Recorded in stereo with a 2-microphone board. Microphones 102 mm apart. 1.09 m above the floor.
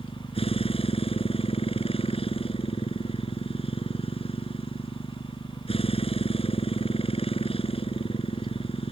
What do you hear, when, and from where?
0.0 s a motorcycle: 70° left (ahead or behind)